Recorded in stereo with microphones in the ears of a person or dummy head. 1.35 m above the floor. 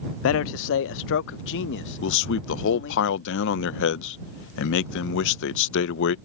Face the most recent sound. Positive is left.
turn(degrees=65)  # may be behind; listen again after turning